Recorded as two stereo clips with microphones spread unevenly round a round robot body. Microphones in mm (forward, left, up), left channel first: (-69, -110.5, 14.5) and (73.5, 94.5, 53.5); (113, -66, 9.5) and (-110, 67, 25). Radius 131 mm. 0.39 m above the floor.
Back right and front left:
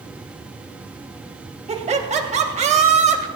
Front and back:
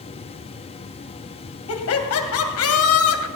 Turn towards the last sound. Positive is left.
turn(degrees=-10)